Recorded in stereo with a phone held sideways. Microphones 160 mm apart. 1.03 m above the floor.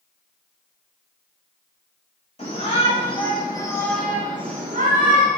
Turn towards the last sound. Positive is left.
turn(degrees=-70)  # may be behind; listen again after turning